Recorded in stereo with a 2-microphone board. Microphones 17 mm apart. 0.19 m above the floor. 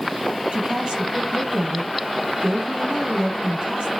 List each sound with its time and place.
0.5 s a woman speaking: 75° right (ahead or behind), 5 m